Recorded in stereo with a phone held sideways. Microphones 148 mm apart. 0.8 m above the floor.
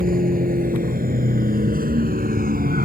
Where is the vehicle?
75° right (ahead or behind); by 2.9 s 80° right.